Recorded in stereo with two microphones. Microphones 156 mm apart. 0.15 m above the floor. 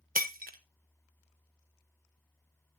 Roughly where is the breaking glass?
Right.